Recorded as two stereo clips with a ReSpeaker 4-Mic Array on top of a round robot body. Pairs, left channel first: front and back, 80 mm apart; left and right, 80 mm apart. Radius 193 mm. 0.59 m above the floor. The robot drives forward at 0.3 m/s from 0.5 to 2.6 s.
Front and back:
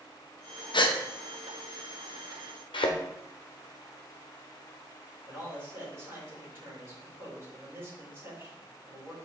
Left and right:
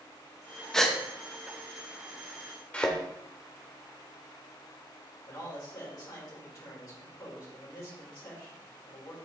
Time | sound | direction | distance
0.7 | a gasp | 5° left | 1.0 m
2.7 | a thud | 15° left | 0.8 m
5.2 | a man speaking | 125° left | 3.5 m